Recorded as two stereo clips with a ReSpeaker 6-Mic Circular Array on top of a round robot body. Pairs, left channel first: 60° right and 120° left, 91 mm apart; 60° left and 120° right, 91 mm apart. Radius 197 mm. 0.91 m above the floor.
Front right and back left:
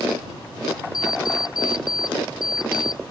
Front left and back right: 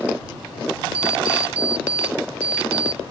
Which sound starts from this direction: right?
An alarm clock, at 0.9 s.